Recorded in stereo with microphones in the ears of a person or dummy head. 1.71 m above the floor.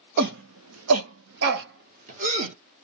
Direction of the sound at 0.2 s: 55° right (ahead or behind).